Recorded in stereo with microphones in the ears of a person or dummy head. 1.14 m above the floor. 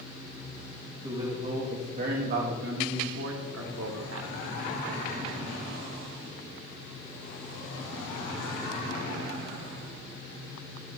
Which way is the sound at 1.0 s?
15° right (ahead or behind).